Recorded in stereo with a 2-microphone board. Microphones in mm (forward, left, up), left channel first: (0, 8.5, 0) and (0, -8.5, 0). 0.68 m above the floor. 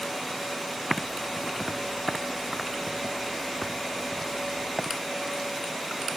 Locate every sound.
0.9 s typing on a keyboard: 5° right (ahead or behind)